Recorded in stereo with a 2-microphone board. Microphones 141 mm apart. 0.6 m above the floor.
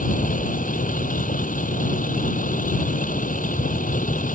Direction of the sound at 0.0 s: 75° left (ahead or behind).